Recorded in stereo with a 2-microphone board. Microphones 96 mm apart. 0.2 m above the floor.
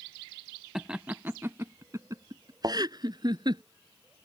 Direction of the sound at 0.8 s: 5° right (ahead or behind).